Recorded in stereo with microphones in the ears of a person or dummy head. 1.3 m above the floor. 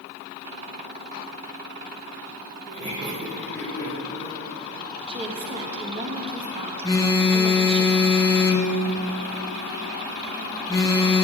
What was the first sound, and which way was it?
Laughter, 40° right (ahead or behind).